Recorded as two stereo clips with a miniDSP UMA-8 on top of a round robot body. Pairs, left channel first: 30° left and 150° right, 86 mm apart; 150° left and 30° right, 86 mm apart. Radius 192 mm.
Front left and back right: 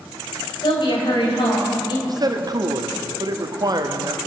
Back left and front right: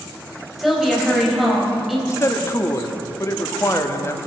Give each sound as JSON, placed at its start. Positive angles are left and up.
{"t": 0.6, "sound": "a woman speaking", "azimuth_deg": 55, "distance_m": 4.0}
{"t": 2.1, "sound": "a man speaking", "azimuth_deg": -165, "distance_m": 1.6}